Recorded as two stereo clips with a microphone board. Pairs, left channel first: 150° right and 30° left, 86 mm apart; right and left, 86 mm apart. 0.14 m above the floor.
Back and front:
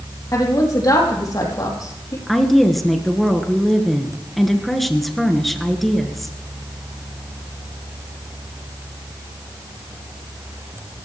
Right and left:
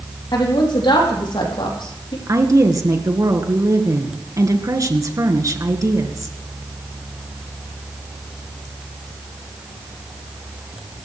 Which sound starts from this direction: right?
A woman speaking, at 0.3 s.